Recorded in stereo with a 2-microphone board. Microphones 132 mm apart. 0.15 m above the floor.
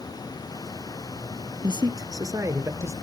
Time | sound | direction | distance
1.6 | a man speaking | 35° right (ahead or behind) | 1.4 m